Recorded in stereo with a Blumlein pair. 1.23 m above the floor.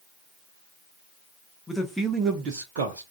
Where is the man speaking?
10° left, 0.7 m; by 3.0 s 65° right, 0.6 m.